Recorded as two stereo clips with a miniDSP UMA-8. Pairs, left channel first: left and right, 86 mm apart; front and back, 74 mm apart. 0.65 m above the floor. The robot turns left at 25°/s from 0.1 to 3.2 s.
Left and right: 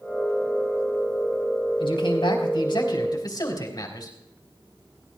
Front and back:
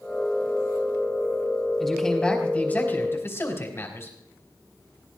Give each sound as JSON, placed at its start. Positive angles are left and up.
{"t": 1.8, "sound": "a man speaking", "azimuth_deg": 85, "distance_m": 4.0}